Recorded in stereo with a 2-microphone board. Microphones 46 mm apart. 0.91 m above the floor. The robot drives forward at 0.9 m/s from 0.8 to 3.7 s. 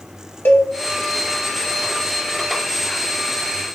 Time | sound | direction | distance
0.5 | a cowbell | 45° left (ahead or behind) | 1.3 m